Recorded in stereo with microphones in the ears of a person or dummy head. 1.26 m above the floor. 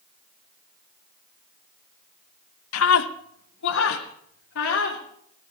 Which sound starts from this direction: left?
A scream, at 2.7 s.